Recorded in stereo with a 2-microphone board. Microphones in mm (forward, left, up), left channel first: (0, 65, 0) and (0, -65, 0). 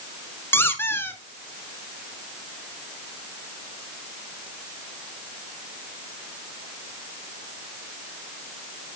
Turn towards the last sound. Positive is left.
turn(degrees=20)  # may be behind; listen again after turning